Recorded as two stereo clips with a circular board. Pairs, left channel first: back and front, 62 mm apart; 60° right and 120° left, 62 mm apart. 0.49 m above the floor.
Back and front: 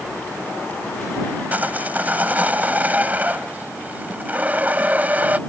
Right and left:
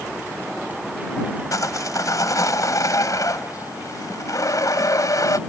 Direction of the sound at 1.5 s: 65° right.